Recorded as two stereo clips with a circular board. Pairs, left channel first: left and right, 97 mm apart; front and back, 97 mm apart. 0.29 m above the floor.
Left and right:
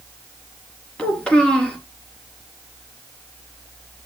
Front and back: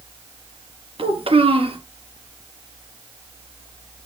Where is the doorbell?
No doorbell in this recording.